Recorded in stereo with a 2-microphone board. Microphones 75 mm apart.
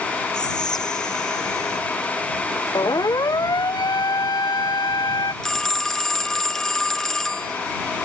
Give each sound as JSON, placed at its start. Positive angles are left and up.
{"t": 0.3, "sound": "whispering", "side_deg": 75}
{"t": 2.8, "sound": "a siren", "side_deg": 65}
{"t": 5.4, "sound": "a phone ringing", "side_deg": 5}